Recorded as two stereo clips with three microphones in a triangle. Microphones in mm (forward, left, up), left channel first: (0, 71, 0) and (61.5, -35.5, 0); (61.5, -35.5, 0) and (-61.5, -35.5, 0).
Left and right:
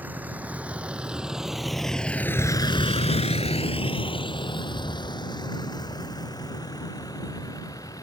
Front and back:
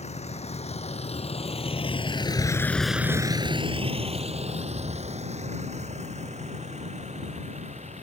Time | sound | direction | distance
0.0 | a vehicle | 15° left | ?